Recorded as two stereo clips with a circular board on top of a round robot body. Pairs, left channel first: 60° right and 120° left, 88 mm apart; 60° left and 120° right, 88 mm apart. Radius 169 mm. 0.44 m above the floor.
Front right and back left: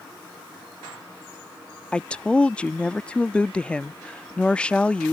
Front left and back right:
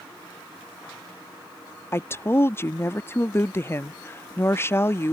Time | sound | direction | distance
1.9 | a woman speaking | 15° left | ?